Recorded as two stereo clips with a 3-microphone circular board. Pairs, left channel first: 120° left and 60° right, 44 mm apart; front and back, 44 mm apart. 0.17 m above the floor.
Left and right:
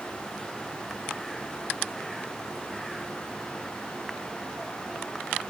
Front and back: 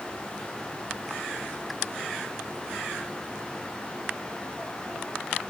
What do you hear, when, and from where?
Only background noise.